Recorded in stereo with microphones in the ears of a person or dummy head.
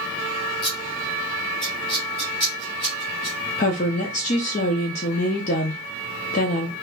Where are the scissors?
20° left (ahead or behind), 1.0 m.